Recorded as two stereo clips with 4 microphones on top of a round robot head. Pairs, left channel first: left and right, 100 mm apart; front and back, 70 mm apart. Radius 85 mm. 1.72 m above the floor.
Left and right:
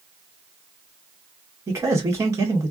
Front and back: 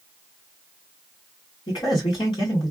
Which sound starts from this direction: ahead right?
A man speaking, at 1.7 s.